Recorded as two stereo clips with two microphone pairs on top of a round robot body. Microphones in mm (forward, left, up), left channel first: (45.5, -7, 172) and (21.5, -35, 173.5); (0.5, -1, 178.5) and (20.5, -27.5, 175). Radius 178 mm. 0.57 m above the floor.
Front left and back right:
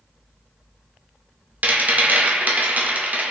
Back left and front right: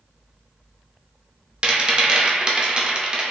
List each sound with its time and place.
1.6 s a rattle: 105° right, 0.8 m